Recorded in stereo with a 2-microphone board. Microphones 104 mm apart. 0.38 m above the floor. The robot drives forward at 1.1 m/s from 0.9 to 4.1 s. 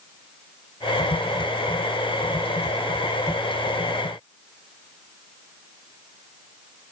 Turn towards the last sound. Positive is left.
No sound to turn to.